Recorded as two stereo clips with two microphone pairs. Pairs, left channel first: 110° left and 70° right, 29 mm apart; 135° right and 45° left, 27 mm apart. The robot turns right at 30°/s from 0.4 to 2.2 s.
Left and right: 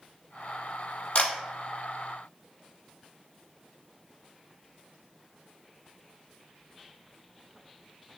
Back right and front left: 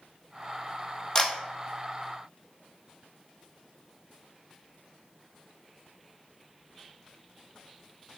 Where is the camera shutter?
155° left, 1.0 m; by 1.3 s 165° left, 1.0 m.